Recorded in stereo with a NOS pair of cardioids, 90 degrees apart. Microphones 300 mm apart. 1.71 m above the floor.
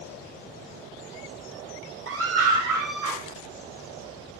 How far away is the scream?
About 1.7 m.